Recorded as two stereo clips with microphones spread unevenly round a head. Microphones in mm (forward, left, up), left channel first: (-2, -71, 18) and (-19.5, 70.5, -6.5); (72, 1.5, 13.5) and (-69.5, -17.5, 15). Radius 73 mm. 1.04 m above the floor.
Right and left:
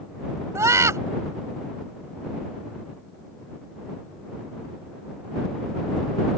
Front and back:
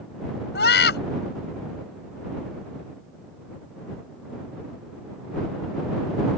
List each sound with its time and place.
0.6 s a scream: 25° left